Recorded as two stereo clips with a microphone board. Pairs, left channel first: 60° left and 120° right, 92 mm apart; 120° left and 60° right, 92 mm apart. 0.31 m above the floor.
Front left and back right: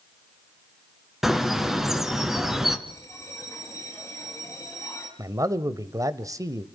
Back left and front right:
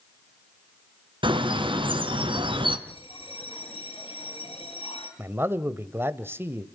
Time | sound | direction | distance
1.2 | a bird | 35° right | 2.5 m
2.9 | a bell | 120° left | 8 m
5.2 | a man speaking | 110° right | 1.2 m